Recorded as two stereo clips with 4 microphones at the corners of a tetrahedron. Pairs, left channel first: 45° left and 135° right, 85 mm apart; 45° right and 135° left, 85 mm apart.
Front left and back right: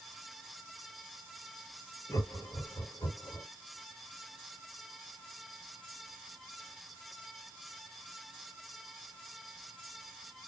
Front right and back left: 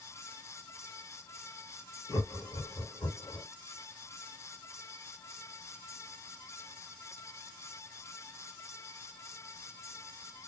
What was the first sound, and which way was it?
Laughter, 5° right.